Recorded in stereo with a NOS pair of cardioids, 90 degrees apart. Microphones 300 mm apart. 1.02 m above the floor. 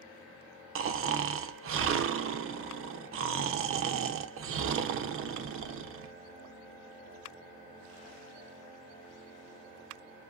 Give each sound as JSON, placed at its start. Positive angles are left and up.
{"t": 0.8, "sound": "snoring", "azimuth_deg": -45, "distance_m": 0.6}